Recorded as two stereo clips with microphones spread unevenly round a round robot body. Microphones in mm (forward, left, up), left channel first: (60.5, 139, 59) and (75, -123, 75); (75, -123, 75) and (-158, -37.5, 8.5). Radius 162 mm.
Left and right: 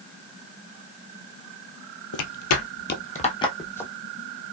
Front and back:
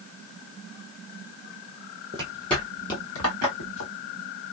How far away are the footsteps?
About 0.7 m.